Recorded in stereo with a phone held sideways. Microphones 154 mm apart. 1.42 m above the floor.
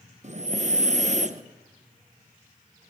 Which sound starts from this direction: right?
Breathing, at 0.2 s.